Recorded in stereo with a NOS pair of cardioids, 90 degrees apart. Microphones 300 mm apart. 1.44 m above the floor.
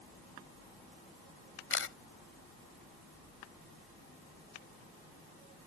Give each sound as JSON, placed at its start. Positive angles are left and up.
{"t": 1.7, "sound": "a camera shutter", "azimuth_deg": 45}